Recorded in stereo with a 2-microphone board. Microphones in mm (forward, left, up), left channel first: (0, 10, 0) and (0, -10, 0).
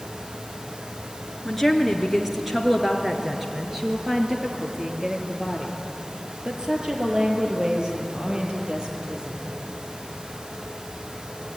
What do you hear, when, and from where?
1.4 s a woman speaking: centre (ahead or behind), 3 m; by 9.6 s 40° right (ahead or behind), 6.5 m